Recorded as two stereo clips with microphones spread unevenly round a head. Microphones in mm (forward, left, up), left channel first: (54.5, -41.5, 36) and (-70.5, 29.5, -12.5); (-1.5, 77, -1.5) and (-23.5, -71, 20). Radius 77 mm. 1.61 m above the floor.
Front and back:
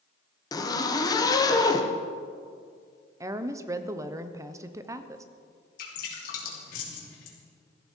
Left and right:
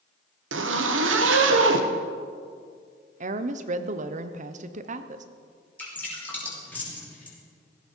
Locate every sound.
0.5 s a zipper: 95° right, 1.2 m
3.2 s a woman speaking: 140° right, 0.9 m
5.8 s dripping: straight ahead, 3 m